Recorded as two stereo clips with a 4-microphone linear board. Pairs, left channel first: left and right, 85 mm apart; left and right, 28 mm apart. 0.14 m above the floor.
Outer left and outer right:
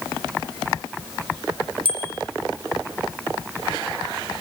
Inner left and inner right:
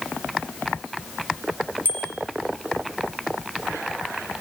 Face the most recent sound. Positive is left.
turn(degrees=-75)  # may be behind; listen again after turning